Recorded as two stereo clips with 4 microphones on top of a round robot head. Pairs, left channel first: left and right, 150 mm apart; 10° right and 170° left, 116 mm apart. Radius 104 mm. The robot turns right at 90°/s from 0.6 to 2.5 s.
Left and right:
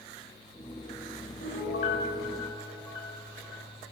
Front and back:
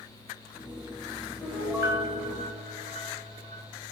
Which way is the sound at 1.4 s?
60° left.